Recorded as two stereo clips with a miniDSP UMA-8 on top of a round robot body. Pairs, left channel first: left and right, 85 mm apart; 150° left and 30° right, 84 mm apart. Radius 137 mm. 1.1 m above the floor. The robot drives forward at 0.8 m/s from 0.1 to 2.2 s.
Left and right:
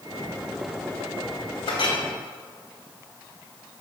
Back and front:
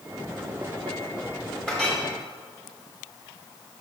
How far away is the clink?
About 1.6 m.